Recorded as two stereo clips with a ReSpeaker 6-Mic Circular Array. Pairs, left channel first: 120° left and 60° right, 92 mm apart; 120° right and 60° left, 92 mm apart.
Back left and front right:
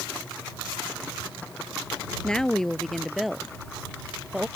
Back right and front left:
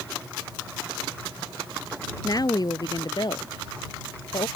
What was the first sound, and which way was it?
A woman speaking, 160° right.